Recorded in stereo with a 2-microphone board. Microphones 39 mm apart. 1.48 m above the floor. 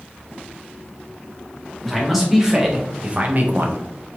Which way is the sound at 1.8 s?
5° right (ahead or behind).